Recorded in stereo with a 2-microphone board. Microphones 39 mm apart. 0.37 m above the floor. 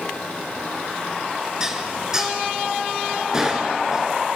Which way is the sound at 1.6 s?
15° right (ahead or behind).